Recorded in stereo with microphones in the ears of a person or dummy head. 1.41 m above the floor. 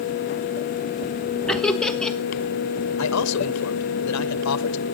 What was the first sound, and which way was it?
Laughter, centre (ahead or behind).